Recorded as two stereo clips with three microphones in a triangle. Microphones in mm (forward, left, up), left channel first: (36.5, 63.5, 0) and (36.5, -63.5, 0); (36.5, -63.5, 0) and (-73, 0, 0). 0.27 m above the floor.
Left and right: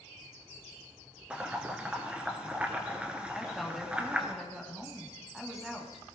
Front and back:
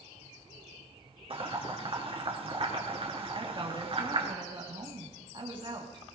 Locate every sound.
1.3 s boiling: 170° right, 1.8 m
3.3 s a woman speaking: straight behind, 2.0 m